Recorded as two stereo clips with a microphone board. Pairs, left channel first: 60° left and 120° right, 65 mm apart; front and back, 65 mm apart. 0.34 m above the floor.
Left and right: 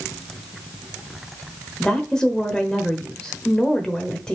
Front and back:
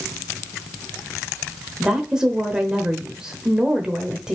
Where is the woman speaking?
120° left, 1.0 m.